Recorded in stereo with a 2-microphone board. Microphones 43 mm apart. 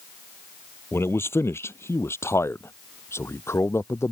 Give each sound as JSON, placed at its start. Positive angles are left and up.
{"t": 0.9, "sound": "a man speaking", "side_deg": 70}